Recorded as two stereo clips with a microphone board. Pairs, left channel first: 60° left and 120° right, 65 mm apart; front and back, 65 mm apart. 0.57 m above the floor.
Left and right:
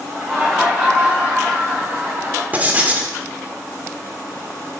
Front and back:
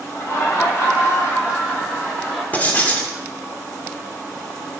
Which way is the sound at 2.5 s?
60° right.